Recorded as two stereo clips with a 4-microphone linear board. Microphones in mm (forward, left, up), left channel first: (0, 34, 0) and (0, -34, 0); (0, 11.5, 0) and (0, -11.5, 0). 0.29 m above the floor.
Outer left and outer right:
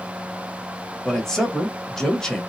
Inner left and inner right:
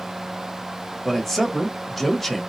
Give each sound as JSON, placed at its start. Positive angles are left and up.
{"t": 1.1, "sound": "a man speaking", "side_deg": 10, "distance_m": 0.9}